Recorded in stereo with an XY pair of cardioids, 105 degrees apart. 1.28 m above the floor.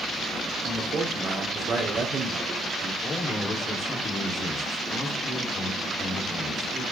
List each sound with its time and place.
0.7 s a man speaking: 40° right, 3.5 m
3.0 s a man speaking: 50° left, 4 m